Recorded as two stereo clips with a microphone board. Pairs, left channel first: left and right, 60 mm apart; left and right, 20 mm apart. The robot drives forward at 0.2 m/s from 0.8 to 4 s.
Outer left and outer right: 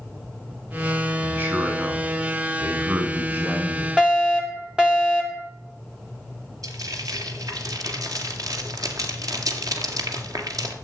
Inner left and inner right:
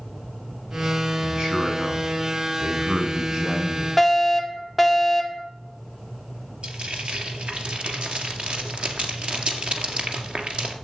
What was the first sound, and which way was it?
A man speaking, 40° right (ahead or behind).